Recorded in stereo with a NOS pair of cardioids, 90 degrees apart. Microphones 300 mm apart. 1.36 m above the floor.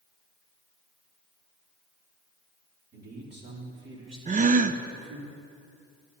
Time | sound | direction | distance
2.9 | a man speaking | 30° right | 3.5 m
4.3 | a gasp | 25° right | 0.6 m